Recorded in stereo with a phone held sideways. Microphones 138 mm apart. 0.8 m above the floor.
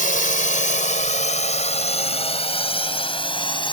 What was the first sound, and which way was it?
A drone, 75° left (ahead or behind).